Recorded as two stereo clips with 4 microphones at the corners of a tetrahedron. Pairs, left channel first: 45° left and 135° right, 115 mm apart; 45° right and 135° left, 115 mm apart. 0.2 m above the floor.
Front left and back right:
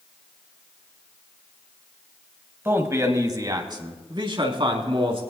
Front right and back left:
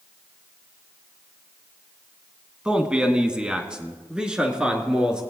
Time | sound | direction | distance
2.6 | a man speaking | 155° right | 1.4 m